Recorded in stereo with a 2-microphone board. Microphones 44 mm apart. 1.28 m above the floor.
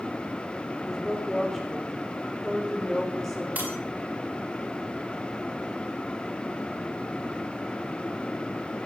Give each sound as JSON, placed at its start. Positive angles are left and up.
{"t": 0.9, "sound": "a woman speaking", "side_deg": 5, "distance_m": 5.0}
{"t": 3.5, "sound": "breaking glass", "side_deg": -45, "distance_m": 9.5}